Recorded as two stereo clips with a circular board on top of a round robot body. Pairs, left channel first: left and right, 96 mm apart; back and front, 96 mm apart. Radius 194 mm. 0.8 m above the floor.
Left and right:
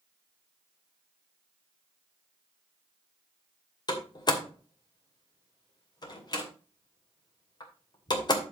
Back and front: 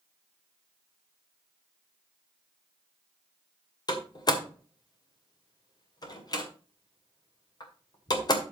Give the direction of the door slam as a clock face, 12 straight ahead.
8 o'clock.